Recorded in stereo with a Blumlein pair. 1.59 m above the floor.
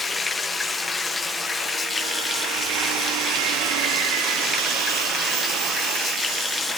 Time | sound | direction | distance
0.0 | running water | 15° left | 1.0 m